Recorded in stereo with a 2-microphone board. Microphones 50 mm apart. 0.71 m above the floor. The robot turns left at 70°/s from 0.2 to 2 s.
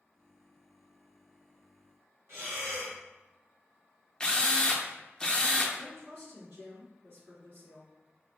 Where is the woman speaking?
55° right (ahead or behind), 1.7 m.